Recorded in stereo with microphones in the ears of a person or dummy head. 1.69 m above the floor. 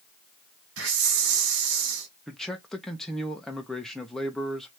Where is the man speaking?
5° left (ahead or behind), 1.0 m.